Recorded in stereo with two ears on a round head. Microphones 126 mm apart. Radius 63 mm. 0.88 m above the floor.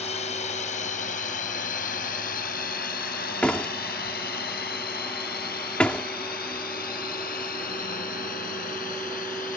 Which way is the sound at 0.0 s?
55° left (ahead or behind).